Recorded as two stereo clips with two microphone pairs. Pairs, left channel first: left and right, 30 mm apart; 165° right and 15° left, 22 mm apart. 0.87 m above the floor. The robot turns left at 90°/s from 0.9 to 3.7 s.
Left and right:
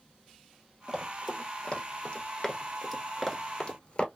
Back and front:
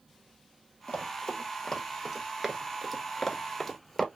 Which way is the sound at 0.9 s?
155° right.